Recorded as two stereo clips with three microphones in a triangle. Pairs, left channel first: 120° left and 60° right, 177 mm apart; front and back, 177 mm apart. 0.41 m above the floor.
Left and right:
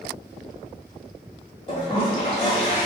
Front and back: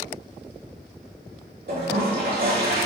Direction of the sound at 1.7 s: 170° left.